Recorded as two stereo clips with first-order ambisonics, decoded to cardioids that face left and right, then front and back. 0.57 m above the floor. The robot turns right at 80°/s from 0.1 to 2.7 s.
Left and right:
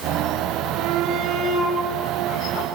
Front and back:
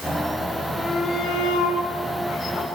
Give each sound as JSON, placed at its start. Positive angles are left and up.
{"t": 0.8, "sound": "a shout", "azimuth_deg": -90, "distance_m": 3.0}